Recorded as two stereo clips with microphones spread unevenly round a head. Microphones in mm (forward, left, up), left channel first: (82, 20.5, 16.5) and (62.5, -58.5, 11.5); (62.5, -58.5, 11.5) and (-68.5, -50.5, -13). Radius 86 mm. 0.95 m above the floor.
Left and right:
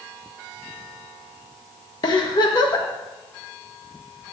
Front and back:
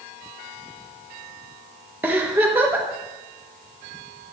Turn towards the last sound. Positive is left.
turn(degrees=105)